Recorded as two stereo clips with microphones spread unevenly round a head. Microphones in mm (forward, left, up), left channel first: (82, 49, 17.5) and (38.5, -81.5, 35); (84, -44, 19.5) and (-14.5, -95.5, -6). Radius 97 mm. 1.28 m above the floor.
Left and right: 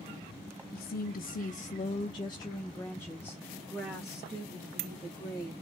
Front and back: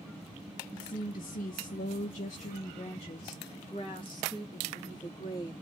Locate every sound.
0.7 s a woman speaking: 75° left, 0.8 m; by 5.5 s 25° right, 2.5 m